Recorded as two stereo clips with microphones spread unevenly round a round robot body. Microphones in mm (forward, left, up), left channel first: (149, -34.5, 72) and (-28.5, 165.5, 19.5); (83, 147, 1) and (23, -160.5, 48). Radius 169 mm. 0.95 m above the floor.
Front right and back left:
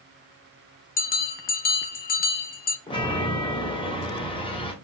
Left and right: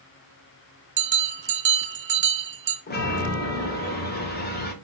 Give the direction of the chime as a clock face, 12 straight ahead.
11 o'clock.